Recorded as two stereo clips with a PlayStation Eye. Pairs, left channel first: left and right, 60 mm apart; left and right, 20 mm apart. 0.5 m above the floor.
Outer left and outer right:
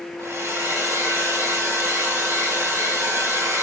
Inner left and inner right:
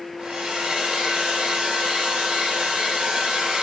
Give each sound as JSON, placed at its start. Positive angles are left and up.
{"t": 0.2, "sound": "a hair dryer", "side_deg": -50, "distance_m": 2.5}